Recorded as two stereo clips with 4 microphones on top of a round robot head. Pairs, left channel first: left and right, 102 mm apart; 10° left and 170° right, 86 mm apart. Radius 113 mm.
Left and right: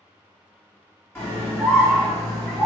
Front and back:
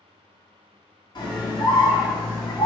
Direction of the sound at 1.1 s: 25° left.